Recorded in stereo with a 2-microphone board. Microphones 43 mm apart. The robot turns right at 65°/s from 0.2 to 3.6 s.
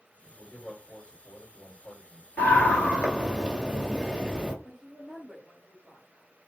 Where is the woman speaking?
10° left (ahead or behind), 2 m.